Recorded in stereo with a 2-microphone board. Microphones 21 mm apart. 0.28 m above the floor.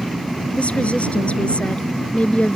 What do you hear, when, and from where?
0.6 s a woman speaking: 70° left (ahead or behind)